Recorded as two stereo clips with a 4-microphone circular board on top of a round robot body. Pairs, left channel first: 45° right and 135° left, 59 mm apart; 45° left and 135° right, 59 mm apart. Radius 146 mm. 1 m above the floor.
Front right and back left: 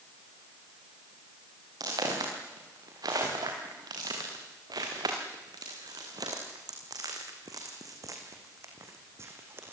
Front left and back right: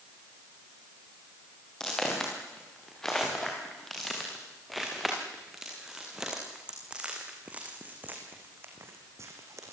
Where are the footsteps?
125° left, 6.5 m; by 9.7 s 170° right, 3 m.